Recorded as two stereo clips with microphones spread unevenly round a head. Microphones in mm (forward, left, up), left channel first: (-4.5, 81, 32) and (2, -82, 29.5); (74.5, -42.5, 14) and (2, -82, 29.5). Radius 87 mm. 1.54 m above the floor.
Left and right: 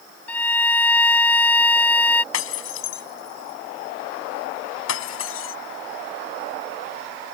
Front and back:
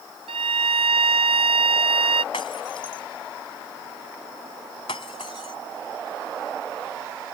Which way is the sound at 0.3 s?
175° left.